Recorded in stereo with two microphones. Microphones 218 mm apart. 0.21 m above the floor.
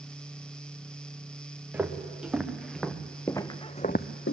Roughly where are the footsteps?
Centre.